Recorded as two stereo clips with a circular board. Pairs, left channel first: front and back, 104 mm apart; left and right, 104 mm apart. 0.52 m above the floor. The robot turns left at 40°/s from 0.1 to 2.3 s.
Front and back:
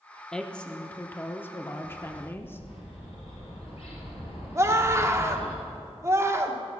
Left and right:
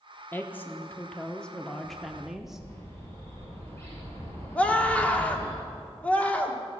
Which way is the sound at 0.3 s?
70° left.